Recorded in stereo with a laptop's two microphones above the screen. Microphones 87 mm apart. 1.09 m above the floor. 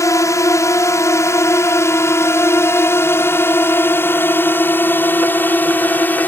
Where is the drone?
40° left (ahead or behind); by 6.3 s 20° left (ahead or behind).